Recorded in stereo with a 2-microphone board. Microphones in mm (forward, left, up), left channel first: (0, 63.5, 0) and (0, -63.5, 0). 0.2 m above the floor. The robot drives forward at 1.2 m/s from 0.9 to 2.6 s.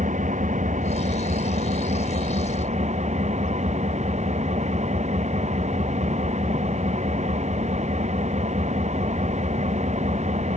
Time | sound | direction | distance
0.0 | an engine running | 75° right (ahead or behind) | ?